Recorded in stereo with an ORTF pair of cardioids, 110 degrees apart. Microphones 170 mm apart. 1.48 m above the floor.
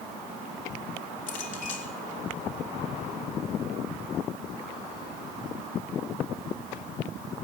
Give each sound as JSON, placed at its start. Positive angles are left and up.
{"t": 1.3, "sound": "a clink", "azimuth_deg": 50, "distance_m": 3.0}